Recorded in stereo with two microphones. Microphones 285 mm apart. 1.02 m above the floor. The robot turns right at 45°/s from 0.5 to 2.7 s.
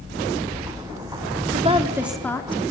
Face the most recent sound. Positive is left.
turn(degrees=25)